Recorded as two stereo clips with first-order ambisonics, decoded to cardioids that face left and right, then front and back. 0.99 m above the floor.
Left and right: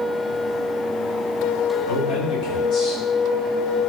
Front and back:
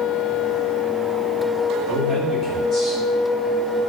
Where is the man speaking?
65° left, 5 m; by 3.0 s 50° left, 4.5 m.